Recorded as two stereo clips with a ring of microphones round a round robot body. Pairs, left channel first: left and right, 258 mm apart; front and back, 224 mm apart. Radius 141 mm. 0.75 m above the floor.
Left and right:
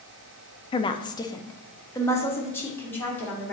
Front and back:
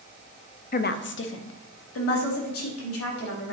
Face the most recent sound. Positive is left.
turn(degrees=5)